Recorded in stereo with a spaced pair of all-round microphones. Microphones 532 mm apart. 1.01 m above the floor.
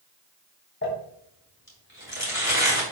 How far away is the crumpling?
About 3.5 m.